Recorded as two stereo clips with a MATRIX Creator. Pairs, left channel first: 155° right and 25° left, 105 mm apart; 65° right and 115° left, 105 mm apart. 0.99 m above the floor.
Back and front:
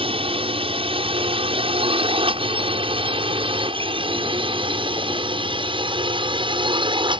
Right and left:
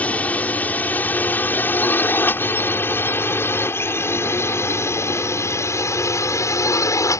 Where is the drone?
5° left; by 7.2 s 10° right.